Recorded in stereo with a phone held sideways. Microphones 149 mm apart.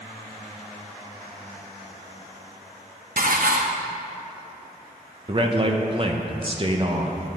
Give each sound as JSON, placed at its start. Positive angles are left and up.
{"t": 3.2, "sound": "dishes clattering", "side_deg": -70, "distance_m": 0.8}
{"t": 5.3, "sound": "a man speaking", "side_deg": -35, "distance_m": 0.8}